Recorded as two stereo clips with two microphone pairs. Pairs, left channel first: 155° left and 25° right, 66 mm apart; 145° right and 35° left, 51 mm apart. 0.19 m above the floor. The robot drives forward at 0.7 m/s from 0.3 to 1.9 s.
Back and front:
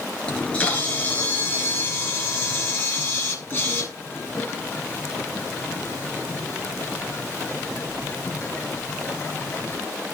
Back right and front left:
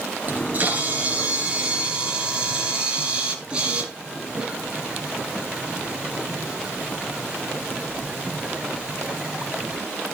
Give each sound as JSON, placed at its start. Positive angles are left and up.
{"t": 0.3, "sound": "a camera shutter", "azimuth_deg": 85, "distance_m": 4.0}